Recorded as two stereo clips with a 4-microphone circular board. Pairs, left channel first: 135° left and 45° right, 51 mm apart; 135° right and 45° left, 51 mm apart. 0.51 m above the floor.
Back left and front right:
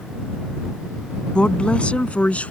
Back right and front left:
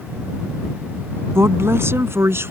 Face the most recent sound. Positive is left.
turn(degrees=75)